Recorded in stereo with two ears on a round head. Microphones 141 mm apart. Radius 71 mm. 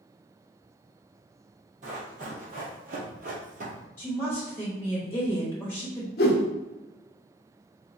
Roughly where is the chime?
I don't hear a chime.